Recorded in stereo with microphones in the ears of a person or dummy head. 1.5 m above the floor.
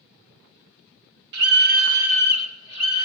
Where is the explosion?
I don't hear an explosion.